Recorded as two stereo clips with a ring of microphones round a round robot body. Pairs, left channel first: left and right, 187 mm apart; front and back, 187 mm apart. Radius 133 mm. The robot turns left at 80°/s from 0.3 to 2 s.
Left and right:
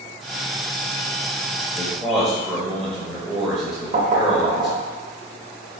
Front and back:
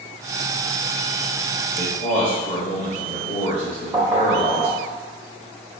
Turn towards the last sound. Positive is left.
turn(degrees=-105)